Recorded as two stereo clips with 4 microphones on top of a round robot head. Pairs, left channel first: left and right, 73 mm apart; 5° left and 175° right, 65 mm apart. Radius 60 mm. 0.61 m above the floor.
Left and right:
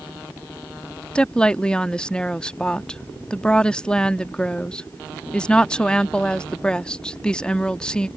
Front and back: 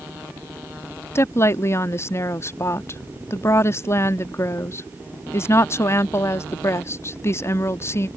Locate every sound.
1.1 s a woman speaking: 20° left